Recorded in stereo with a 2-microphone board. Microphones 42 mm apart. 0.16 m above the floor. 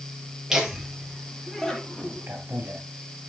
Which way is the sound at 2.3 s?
60° right (ahead or behind).